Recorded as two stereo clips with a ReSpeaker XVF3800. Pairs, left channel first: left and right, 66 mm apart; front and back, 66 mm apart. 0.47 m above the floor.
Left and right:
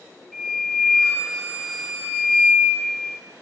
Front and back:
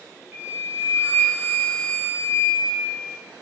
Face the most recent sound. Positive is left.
turn(degrees=165)